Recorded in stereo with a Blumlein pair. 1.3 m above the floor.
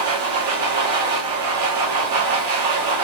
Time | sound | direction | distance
0.0 | a machine running | 55° right | 0.9 m